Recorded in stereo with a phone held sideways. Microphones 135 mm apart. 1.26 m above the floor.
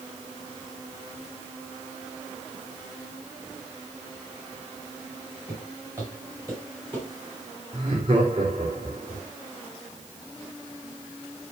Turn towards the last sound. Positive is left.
turn(degrees=-45)  # may be behind; listen again after turning